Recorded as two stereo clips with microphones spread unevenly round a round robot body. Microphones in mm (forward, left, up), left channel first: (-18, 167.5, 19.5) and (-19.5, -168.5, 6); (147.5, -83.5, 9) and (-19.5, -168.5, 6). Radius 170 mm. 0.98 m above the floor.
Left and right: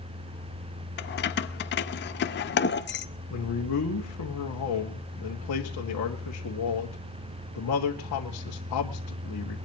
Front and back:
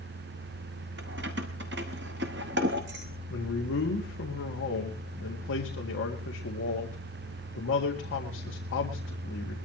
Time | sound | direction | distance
1.0 | keys jangling | 150° left | 0.7 m
3.3 | a man speaking | 50° left | 1.9 m